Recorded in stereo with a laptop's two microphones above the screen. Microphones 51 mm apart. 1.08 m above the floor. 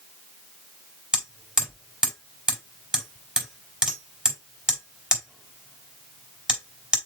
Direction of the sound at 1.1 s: 15° right (ahead or behind).